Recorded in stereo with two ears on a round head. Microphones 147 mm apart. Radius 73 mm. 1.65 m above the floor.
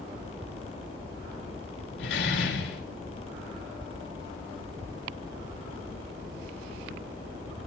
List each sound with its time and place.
2.0 s a door slam: 75° left (ahead or behind), 5 m